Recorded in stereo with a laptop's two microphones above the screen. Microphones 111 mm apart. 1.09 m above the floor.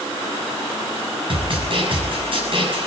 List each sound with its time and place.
1.3 s a snare drum: 50° right (ahead or behind), 6 m